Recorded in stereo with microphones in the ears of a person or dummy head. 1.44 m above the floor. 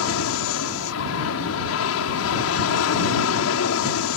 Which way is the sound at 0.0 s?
70° left (ahead or behind).